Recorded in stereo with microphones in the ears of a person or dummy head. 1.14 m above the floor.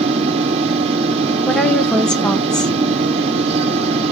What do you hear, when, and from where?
0.0 s a fan: 35° right (ahead or behind), 0.9 m
1.5 s a woman speaking: centre (ahead or behind), 0.5 m